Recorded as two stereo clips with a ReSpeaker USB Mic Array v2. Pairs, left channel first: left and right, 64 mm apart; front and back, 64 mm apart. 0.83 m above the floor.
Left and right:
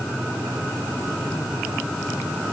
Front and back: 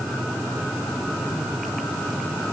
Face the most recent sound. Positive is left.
No sound to turn to.